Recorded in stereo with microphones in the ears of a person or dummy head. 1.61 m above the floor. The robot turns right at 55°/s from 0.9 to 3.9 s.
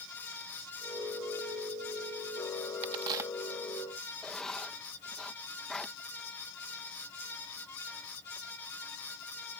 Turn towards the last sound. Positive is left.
turn(degrees=5)  # may be behind; listen again after turning